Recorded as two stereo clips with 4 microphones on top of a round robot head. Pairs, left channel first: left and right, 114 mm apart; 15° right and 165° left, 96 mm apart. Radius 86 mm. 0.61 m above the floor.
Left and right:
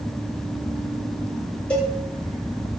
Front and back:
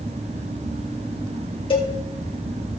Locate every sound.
1.7 s a cowbell: 10° left, 3 m